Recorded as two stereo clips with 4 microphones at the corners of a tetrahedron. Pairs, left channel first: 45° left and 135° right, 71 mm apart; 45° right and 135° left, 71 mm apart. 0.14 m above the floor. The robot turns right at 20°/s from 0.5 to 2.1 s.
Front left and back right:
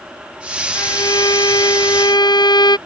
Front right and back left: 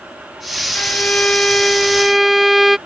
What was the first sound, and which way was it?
A violin, 20° left.